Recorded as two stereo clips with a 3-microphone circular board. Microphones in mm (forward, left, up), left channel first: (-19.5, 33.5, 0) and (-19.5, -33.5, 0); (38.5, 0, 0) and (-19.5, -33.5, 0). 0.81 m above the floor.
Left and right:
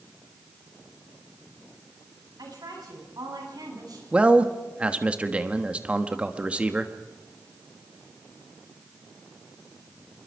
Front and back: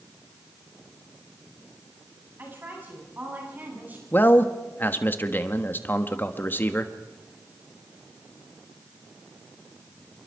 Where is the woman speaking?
90° right, 8 m; by 4.0 s 85° right, 9.5 m.